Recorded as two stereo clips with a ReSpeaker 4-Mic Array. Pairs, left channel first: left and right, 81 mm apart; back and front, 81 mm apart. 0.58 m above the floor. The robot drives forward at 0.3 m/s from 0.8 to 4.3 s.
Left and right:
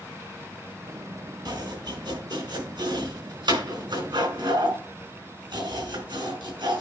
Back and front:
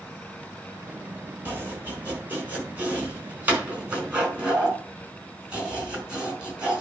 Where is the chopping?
65° right, 4.5 m; by 6.8 s 75° right, 4.5 m.